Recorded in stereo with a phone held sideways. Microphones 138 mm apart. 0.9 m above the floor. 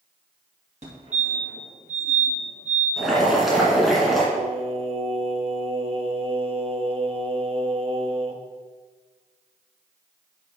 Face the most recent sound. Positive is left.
turn(degrees=-40)  # may be behind; listen again after turning